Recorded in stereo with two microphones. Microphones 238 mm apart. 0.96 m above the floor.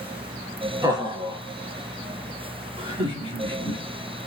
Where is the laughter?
15° right (ahead or behind), 1.6 m; by 3.8 s 25° right (ahead or behind), 3 m.